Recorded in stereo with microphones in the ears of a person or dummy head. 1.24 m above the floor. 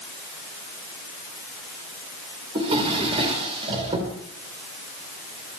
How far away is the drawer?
About 3 m.